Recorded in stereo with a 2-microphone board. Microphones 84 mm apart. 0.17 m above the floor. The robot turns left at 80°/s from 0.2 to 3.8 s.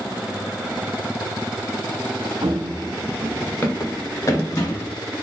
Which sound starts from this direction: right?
Running footsteps, at 2.4 s.